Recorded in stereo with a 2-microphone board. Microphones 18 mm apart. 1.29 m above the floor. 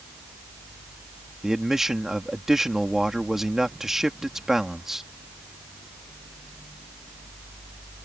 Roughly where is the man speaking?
Right.